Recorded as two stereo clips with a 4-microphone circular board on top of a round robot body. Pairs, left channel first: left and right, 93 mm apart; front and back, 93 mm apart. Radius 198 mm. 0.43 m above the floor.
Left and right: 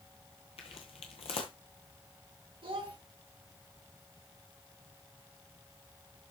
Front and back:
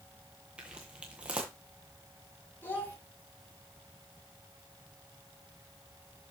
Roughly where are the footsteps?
Left.